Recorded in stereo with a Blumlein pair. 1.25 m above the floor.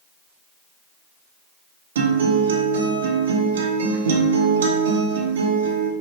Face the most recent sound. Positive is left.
turn(degrees=-60)